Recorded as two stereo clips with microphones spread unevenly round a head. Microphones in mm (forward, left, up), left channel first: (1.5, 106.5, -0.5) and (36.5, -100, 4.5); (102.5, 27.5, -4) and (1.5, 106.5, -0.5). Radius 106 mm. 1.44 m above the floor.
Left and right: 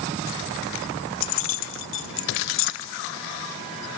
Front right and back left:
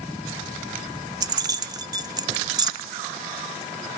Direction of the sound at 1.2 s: 85° left.